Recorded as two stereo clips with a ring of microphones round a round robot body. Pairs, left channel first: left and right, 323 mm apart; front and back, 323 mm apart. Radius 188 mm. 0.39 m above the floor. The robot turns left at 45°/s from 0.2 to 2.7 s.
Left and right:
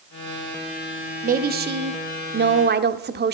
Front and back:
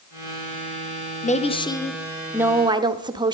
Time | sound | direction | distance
1.2 | a woman speaking | 50° right | 0.9 m